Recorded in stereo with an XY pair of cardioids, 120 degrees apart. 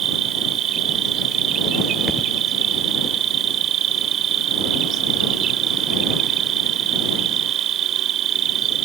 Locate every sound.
0.0 s an insect: 60° right
2.1 s a thud: straight ahead